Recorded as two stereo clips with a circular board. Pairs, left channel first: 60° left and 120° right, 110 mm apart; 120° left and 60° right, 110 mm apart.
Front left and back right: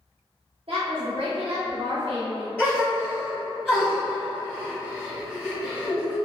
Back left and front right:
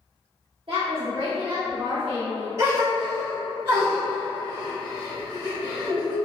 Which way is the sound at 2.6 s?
10° right.